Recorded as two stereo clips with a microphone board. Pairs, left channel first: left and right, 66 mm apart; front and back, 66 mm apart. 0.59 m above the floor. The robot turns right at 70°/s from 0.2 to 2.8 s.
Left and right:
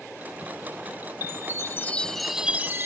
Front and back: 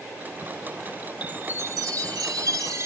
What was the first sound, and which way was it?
A chime, 110° left.